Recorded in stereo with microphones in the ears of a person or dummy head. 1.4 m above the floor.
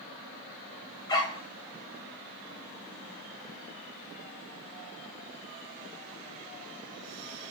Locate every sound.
1.1 s a dog barking: 20° left (ahead or behind), 3 m